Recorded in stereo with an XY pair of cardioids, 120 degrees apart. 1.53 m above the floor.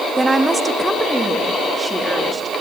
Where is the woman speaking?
15° right, 1.5 m; by 2.5 s 20° right, 3.5 m.